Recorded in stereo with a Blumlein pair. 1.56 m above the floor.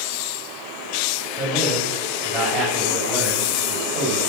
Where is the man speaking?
20° right, 7.5 m; by 4.3 s 10° right, 7.5 m.